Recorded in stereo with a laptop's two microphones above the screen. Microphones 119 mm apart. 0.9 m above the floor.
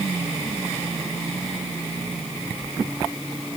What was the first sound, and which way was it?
Only background noise.